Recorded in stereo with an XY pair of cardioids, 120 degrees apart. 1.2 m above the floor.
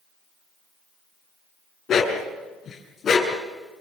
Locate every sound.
1.9 s a dog barking: 45° left, 6 m; by 3.4 s 35° left, 6.5 m